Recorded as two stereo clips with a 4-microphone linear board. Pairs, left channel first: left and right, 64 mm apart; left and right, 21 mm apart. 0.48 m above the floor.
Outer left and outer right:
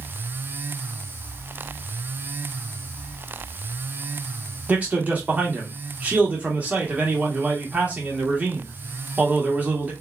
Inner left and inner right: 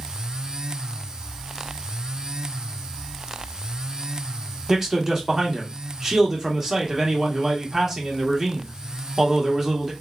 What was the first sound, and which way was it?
A man speaking, 25° right (ahead or behind).